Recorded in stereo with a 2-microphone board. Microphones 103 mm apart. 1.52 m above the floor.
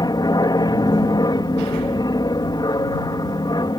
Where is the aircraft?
40° left (ahead or behind).